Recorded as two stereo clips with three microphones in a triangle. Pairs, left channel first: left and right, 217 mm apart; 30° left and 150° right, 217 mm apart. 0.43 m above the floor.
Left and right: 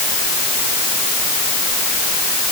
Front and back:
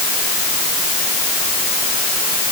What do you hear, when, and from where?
Only background noise.